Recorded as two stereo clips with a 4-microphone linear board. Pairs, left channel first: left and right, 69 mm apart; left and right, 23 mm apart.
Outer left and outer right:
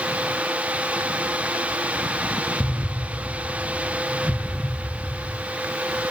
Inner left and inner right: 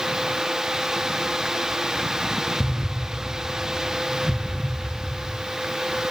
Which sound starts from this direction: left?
An explosion, at 2.6 s.